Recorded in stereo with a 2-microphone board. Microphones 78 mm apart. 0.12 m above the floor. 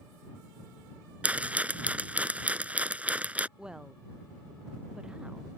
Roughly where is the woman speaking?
Centre.